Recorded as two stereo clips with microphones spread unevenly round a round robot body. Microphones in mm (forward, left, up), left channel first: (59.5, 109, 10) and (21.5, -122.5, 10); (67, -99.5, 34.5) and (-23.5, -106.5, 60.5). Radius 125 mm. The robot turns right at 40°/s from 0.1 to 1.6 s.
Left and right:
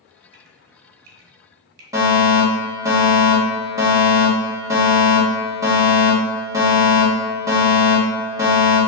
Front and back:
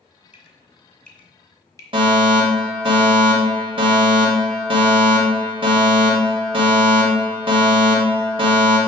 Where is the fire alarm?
170° right, 1.9 m.